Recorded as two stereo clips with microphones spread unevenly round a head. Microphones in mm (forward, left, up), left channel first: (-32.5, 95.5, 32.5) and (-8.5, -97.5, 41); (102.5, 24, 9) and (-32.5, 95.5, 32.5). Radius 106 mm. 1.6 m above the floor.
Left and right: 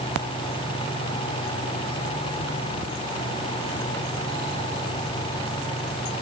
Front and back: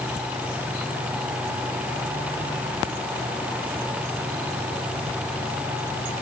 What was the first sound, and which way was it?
Only background noise.